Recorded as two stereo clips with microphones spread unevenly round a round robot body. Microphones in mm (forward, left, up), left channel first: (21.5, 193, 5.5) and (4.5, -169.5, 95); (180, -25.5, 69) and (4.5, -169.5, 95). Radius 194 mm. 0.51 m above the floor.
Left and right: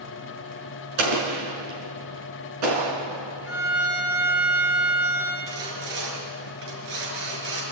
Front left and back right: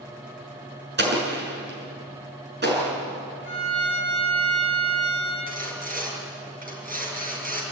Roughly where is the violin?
Right.